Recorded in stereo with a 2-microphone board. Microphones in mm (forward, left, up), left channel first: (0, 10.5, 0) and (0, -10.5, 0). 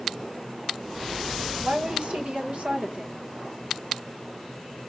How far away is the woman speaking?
About 1.2 m.